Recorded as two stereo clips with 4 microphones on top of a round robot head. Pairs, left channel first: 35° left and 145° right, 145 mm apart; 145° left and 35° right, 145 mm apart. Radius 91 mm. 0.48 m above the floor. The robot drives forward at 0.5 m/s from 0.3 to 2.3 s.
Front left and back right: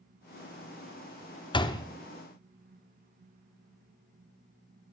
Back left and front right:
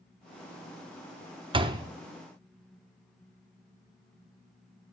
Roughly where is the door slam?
Ahead.